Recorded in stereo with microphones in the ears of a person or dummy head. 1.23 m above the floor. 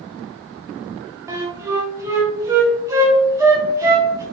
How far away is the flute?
About 0.6 m.